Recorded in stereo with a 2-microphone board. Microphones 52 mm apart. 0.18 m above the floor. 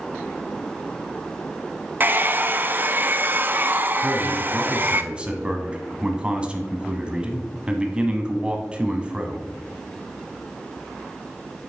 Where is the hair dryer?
35° right (ahead or behind), 0.6 m.